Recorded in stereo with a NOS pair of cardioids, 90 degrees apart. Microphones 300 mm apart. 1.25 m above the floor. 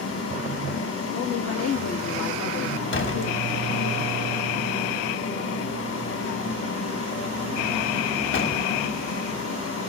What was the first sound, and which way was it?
A fan, 50° left.